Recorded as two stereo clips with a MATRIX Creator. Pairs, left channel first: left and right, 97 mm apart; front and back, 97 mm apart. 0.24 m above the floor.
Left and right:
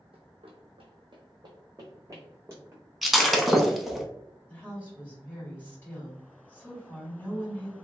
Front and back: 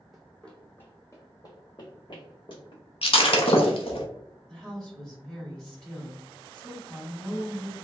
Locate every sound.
0.1 s running footsteps: 90° right, 0.9 m; by 2.8 s 20° right, 1.4 m
3.0 s breaking glass: straight ahead, 0.6 m
4.5 s a woman speaking: 70° left, 1.6 m